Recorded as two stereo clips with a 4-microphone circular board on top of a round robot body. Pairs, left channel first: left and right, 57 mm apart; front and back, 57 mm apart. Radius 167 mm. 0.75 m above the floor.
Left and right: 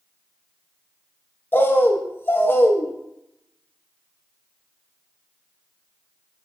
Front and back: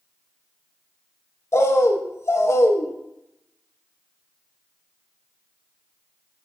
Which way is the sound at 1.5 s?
40° left.